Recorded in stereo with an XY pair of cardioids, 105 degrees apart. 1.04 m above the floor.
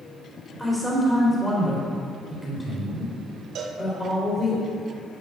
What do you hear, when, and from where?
0.6 s a man speaking: 10° left, 3.5 m
3.5 s a cowbell: 65° right, 1.1 m